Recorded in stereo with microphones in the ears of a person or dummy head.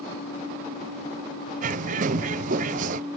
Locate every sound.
1.6 s a bird: 45° right (ahead or behind)